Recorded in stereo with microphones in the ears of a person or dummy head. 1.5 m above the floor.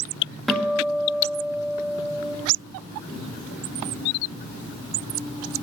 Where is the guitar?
Centre (ahead or behind), 1.9 m.